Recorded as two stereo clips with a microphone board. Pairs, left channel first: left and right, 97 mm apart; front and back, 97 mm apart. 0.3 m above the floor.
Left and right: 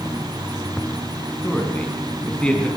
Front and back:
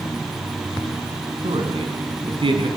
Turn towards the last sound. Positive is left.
turn(degrees=165)